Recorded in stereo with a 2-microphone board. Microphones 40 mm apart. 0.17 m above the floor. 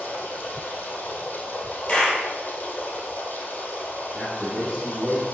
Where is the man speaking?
15° left (ahead or behind), 3.5 m.